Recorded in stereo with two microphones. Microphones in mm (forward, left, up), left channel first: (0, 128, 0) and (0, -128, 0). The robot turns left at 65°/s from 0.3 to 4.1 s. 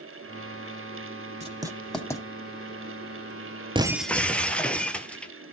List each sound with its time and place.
1.4 s writing: 25° right (ahead or behind), 1.1 m; by 2.2 s 15° left (ahead or behind), 1.1 m
3.8 s breaking glass: 20° right (ahead or behind), 0.7 m; by 5.3 s 5° left (ahead or behind), 0.7 m